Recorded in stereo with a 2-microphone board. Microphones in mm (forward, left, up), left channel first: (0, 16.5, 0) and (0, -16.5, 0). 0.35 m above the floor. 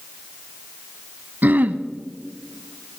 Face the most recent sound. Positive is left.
turn(degrees=-60)  # may be behind; listen again after turning